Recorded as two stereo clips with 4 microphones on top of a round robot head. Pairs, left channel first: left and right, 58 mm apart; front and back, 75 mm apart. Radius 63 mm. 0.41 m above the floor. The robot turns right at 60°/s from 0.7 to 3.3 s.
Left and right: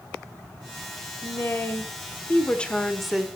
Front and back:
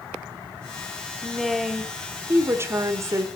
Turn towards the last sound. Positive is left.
turn(degrees=-165)